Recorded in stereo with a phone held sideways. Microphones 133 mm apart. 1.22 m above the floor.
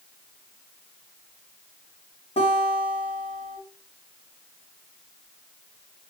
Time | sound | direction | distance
2.4 | a guitar | 45° left (ahead or behind) | 3 m